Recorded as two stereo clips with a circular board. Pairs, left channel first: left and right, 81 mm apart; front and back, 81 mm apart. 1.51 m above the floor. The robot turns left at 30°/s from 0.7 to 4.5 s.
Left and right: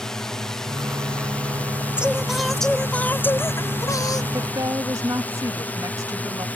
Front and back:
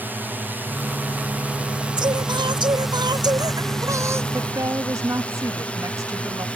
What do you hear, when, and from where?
0.0 s a drone: 165° left; by 6.6 s 50° left
2.0 s singing: 165° right; by 4.2 s 125° left
4.3 s a woman speaking: 130° right; by 6.5 s 135° right